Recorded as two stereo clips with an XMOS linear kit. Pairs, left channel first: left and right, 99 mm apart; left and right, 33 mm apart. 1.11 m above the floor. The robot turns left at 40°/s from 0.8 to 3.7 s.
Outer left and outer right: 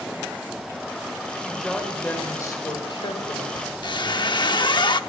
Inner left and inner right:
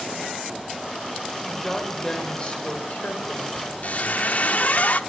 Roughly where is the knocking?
I don't hear knocking.